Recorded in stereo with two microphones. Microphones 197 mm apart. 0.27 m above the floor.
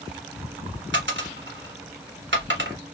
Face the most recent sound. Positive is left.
turn(degrees=-70)  # may be behind; listen again after turning